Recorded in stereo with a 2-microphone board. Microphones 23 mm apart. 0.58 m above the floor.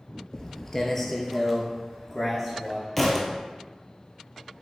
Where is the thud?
5° left (ahead or behind), 0.7 m.